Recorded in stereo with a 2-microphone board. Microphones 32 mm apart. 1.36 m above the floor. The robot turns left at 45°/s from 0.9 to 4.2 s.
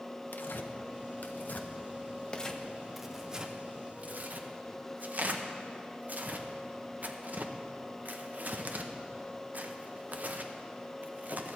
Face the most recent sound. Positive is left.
turn(degrees=-50)  # may be behind; listen again after turning